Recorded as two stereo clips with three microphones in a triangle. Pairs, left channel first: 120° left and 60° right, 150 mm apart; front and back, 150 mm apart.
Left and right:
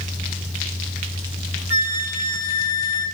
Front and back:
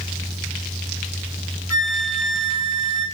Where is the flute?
75° left, 1.3 m.